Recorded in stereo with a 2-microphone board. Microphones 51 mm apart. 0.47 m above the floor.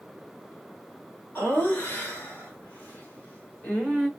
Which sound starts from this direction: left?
Laughter, at 1.4 s.